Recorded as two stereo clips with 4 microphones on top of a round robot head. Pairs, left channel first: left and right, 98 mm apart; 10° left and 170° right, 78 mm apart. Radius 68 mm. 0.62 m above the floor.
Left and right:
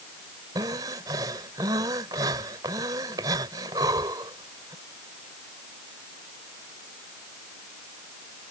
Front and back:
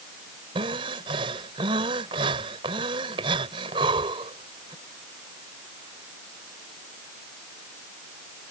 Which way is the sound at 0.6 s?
150° right.